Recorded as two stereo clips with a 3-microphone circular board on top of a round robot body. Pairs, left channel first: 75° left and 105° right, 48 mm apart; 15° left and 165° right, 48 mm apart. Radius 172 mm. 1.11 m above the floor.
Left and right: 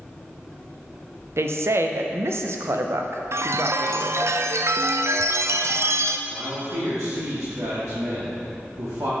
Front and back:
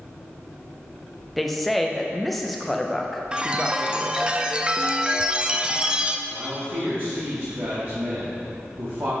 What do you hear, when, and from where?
1.4 s a woman speaking: 75° right, 0.7 m
3.3 s a chime: 95° right, 0.6 m
6.3 s a man speaking: 125° right, 2 m